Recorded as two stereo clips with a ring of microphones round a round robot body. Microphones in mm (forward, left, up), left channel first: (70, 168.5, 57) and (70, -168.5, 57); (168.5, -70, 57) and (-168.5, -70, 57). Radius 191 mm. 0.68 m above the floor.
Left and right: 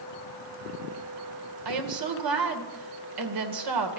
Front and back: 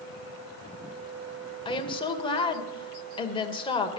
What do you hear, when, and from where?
1.6 s a woman speaking: 75° right, 2.5 m